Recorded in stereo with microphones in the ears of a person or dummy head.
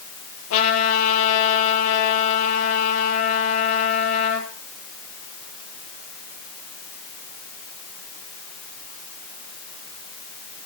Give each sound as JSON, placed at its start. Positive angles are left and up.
{"t": 0.5, "sound": "a trumpet", "side_deg": 85, "distance_m": 9.0}